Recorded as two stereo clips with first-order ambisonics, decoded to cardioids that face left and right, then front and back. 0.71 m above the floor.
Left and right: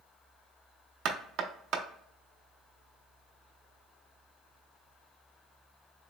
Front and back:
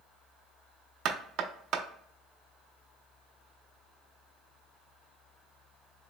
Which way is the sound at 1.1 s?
130° right.